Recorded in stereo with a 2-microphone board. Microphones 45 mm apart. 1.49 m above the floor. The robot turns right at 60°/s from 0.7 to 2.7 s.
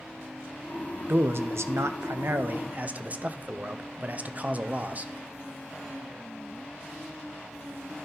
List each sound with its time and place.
1.1 s a man speaking: 130° right, 0.5 m; by 5.1 s 30° right, 0.5 m